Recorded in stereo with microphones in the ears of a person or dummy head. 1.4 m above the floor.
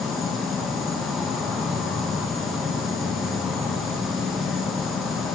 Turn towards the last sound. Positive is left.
turn(degrees=-5)  # may be behind; listen again after turning